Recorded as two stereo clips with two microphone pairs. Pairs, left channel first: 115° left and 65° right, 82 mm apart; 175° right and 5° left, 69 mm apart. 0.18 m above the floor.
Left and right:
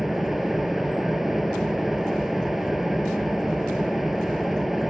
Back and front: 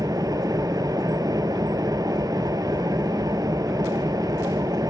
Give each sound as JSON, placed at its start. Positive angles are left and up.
{"t": 0.0, "sound": "an engine running", "azimuth_deg": 20, "distance_m": 0.7}